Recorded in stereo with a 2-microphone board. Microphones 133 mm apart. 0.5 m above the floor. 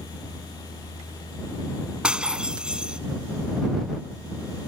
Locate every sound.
2.0 s breaking glass: 5° right (ahead or behind)